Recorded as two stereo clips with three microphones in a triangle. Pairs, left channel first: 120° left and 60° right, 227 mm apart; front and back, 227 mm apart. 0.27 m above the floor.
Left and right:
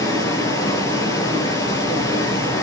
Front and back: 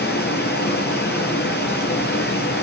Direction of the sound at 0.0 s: 45° left.